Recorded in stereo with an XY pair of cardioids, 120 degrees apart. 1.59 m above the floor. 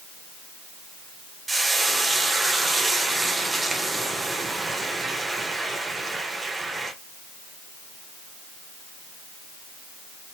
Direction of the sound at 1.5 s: 15° right.